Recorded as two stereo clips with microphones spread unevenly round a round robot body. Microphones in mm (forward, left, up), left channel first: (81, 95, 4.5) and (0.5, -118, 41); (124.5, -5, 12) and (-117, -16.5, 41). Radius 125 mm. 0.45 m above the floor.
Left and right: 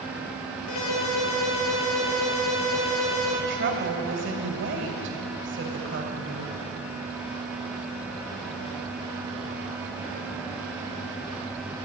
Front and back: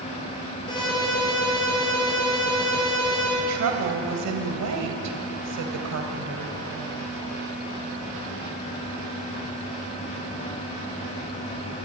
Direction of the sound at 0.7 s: 75° left.